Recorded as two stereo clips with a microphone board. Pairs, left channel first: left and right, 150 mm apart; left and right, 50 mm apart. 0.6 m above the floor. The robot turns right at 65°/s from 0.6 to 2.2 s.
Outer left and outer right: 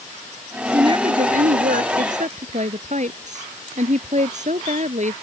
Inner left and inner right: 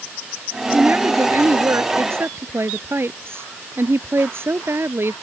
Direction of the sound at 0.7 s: 155° right.